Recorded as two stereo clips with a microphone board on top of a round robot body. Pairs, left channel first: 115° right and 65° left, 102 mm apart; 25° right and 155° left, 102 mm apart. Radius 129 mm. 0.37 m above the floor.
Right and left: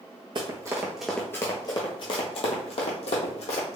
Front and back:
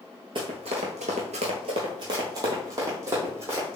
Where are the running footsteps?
115° left, 0.6 m; by 3.8 s 135° right, 1.6 m.